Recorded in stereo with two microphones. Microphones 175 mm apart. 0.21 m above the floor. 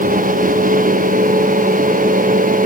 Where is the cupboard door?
No cupboard door in this recording.